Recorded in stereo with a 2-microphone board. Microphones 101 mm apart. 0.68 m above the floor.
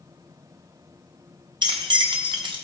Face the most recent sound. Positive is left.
turn(degrees=-50)  # may be behind; listen again after turning